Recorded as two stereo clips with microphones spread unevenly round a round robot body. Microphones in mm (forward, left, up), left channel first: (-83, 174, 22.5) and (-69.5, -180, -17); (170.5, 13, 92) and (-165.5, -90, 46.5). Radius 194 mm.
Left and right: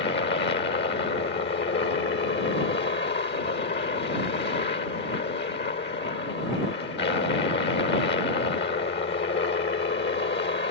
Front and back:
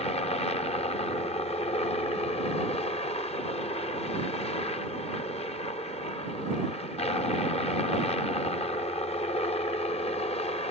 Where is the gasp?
No gasp in this recording.